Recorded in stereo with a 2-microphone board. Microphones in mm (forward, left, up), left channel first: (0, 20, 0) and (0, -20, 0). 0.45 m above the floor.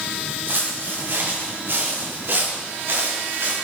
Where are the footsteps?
60° right (ahead or behind), 5.5 m; by 3.5 s 65° right (ahead or behind), 3.5 m.